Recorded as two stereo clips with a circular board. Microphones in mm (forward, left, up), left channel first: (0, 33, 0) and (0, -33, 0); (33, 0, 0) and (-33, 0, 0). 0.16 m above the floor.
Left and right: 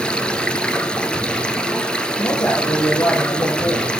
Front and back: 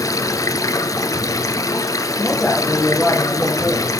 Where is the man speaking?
80° left, 3.5 m.